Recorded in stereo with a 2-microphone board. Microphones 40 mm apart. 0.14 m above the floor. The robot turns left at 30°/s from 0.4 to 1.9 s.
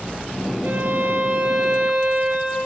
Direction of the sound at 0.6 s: 80° right.